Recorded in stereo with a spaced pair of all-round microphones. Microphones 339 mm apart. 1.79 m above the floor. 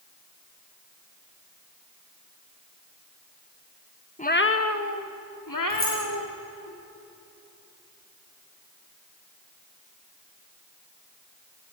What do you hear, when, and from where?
4.2 s a cat meowing: 20° left (ahead or behind), 1.0 m; by 6.7 s 75° left (ahead or behind), 4 m
5.7 s keys jangling: 50° left (ahead or behind), 8.5 m